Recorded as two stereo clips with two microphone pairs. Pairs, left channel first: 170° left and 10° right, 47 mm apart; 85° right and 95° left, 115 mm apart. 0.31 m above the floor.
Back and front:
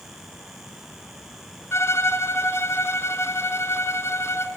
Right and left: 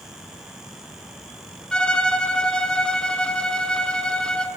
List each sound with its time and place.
1.7 s a violin: 165° right, 1.8 m